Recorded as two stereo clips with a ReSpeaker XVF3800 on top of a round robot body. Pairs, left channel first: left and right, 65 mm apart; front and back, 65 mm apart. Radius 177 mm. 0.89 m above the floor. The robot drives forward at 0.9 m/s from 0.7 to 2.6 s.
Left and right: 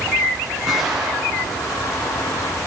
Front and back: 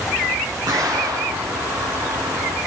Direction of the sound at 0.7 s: Straight behind.